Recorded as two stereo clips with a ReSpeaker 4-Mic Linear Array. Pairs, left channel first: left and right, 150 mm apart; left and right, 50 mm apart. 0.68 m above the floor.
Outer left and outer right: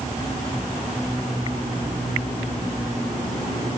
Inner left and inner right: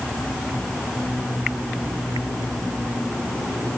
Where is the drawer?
No drawer in this recording.